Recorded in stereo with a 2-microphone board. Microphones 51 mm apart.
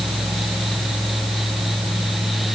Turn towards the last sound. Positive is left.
No sound to turn to.